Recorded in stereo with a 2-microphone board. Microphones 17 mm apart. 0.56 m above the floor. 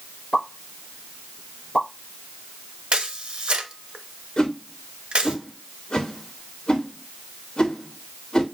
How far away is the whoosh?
About 1.6 m.